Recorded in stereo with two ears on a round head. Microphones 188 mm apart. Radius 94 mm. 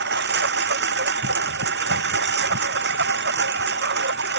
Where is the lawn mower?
50° right (ahead or behind).